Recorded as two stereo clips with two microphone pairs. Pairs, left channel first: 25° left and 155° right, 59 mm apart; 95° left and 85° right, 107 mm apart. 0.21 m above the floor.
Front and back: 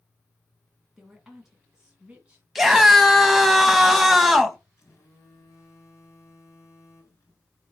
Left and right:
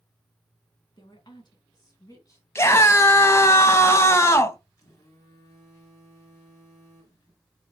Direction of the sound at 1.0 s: 120° left.